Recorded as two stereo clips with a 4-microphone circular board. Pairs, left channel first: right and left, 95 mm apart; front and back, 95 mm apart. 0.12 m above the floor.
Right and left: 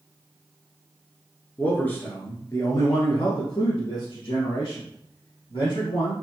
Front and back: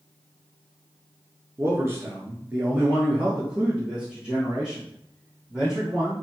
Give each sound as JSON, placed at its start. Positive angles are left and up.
{"t": 1.6, "sound": "a man speaking", "azimuth_deg": -155, "distance_m": 1.3}